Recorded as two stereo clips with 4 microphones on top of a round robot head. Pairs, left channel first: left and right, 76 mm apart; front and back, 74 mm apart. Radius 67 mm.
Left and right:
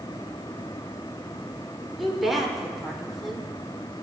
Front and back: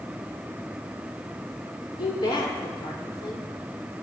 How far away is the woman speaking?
About 2.5 m.